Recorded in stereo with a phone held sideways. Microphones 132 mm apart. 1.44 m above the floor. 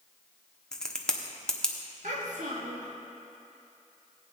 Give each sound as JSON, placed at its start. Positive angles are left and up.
{"t": 0.7, "sound": "a crack", "side_deg": 5, "distance_m": 1.0}
{"t": 2.0, "sound": "a child speaking", "side_deg": -70, "distance_m": 1.6}